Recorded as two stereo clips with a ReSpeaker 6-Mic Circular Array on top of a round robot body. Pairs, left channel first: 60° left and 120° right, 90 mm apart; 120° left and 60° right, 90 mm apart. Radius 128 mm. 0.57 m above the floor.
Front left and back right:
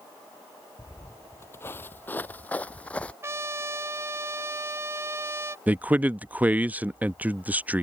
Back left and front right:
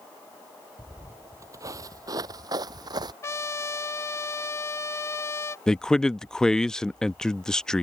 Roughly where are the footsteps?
Ahead.